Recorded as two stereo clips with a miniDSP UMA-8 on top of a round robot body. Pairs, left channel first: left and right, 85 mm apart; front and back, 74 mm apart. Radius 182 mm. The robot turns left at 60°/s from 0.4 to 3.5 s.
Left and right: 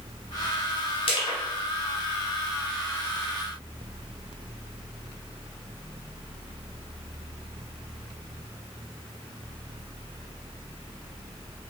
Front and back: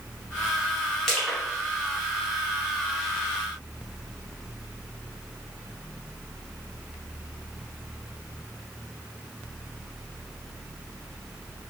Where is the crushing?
85° left, 0.7 m; by 1.4 s 65° left, 0.7 m.